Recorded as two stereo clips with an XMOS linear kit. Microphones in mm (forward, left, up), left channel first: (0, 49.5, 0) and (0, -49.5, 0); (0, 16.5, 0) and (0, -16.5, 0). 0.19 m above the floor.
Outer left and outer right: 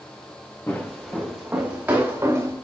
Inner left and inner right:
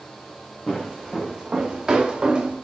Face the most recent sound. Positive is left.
turn(degrees=-25)  # may be behind; listen again after turning